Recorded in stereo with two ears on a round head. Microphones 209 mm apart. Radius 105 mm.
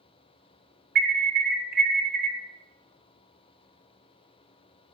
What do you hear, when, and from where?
0.9 s an alarm: 40° right (ahead or behind), 1.4 m